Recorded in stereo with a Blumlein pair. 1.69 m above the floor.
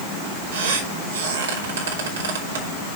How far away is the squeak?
About 3 m.